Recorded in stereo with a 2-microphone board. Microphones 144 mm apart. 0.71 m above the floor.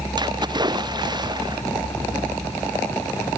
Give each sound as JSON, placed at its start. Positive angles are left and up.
{"t": 0.2, "sound": "a splash", "side_deg": -30}